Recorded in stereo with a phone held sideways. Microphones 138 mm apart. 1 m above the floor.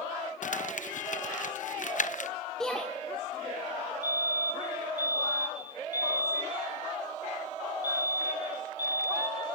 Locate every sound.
0.4 s crumpling: 65° left (ahead or behind), 0.6 m
2.6 s a shout: 5° left (ahead or behind), 2 m
4.0 s a fire alarm: 30° left (ahead or behind), 4 m